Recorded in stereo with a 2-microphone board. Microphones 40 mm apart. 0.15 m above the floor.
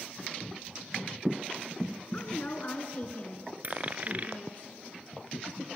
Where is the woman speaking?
40° left (ahead or behind), 2.0 m.